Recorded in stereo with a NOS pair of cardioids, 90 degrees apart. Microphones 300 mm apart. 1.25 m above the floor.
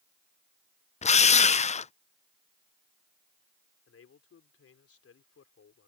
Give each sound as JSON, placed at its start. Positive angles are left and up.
{"t": 1.0, "sound": "a drill", "azimuth_deg": 20}
{"t": 3.9, "sound": "a man speaking", "azimuth_deg": 45}